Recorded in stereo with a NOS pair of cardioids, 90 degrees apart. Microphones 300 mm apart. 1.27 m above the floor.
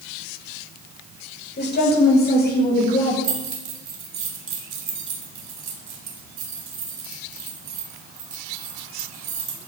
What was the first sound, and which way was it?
A woman speaking, 35° left.